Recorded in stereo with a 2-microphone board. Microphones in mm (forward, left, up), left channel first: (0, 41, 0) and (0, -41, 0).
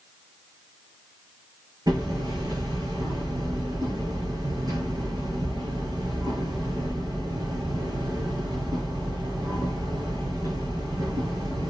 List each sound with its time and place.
1.9 s hammering: 50° right (ahead or behind), 7 m